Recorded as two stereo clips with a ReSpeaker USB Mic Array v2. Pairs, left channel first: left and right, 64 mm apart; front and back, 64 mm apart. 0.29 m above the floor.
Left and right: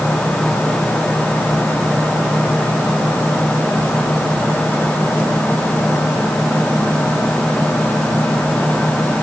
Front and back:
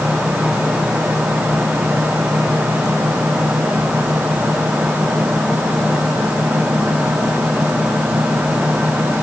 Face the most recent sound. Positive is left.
No sound to turn to.